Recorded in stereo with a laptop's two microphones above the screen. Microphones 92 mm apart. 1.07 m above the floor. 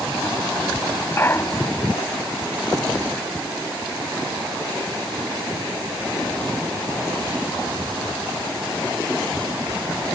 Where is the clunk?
25° left (ahead or behind).